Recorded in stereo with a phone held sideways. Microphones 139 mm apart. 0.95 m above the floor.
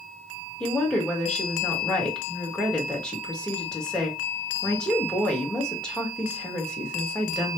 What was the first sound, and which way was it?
A woman speaking, 5° left (ahead or behind).